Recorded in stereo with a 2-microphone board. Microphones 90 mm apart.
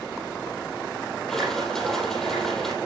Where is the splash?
5° left (ahead or behind), 5 m.